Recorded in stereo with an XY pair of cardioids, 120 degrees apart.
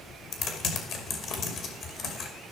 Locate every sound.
0.3 s typing on a keyboard: 60° left, 2.5 m